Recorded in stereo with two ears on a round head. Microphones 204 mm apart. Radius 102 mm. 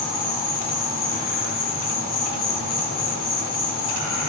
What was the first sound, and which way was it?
An insect, 45° left (ahead or behind).